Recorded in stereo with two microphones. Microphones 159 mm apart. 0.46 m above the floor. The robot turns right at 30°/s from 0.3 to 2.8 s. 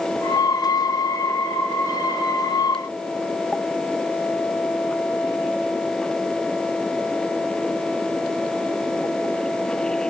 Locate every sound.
Only background noise.